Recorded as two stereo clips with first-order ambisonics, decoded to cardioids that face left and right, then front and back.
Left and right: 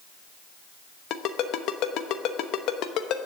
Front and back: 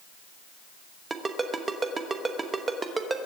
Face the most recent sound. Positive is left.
turn(degrees=110)